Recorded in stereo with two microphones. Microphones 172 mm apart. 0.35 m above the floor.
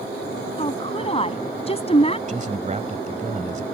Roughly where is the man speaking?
Right.